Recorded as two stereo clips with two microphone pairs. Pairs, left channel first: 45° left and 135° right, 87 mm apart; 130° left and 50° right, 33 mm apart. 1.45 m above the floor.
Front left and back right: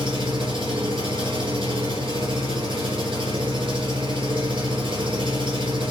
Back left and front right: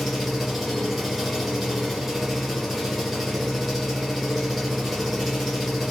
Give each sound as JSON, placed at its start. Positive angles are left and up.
{"t": 0.0, "sound": "an engine running", "azimuth_deg": -135, "distance_m": 5.0}